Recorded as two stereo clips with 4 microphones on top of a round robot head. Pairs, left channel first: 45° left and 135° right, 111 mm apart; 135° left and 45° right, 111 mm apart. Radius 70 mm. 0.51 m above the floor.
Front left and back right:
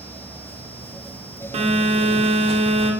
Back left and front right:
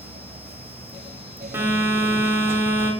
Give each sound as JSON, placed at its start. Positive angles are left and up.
{"t": 1.5, "sound": "a phone buzzing", "azimuth_deg": -115, "distance_m": 0.7}